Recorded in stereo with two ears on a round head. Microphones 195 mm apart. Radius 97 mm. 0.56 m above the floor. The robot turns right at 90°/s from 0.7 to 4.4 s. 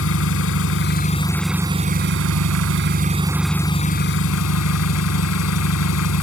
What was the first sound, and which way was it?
An engine running, 110° left.